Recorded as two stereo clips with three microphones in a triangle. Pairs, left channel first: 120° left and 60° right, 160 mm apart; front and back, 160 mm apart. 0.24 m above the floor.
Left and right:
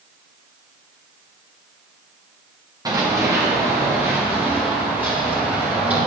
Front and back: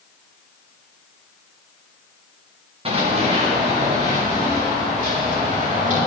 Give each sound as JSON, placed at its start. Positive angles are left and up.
{"t": 2.9, "sound": "running footsteps", "azimuth_deg": -125, "distance_m": 3.0}